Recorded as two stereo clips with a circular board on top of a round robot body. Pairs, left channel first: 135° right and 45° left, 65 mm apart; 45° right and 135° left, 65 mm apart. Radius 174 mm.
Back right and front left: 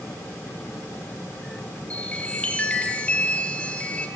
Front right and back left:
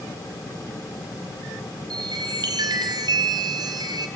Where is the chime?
150° left, 1.7 m.